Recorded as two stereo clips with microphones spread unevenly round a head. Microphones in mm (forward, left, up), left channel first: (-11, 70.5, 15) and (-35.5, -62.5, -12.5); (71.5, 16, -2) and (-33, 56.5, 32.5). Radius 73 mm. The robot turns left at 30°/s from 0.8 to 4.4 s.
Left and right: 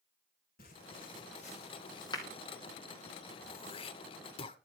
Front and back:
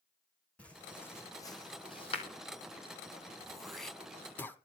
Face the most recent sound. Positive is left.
turn(degrees=65)